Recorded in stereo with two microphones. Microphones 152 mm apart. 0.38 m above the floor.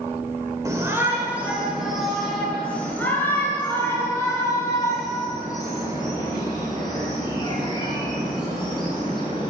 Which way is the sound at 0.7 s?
20° right (ahead or behind).